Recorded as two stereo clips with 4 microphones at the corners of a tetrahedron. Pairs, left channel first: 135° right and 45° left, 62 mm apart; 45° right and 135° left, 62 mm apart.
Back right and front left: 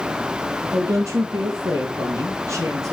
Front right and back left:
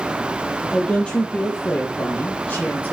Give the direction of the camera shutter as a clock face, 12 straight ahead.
No camera shutter in this recording.